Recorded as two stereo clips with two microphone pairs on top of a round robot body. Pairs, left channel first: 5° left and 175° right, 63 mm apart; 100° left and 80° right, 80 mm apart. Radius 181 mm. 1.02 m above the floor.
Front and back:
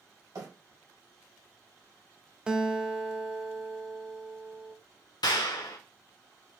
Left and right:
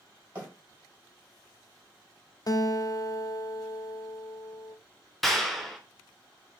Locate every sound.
0.3 s a bird: 150° right, 3 m
2.5 s a guitar: 125° left, 0.8 m
5.2 s a clap: 10° left, 0.5 m